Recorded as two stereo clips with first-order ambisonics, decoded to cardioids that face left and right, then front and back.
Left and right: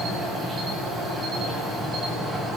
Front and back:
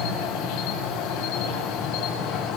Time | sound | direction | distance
0.0 | an insect | 20° right | 8.5 m